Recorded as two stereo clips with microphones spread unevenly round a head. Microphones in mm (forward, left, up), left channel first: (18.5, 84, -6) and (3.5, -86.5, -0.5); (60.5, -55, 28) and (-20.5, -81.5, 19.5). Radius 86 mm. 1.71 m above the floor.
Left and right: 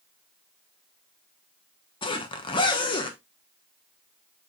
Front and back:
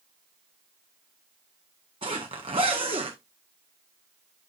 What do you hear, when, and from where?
2.0 s a zipper: 145° left, 1.1 m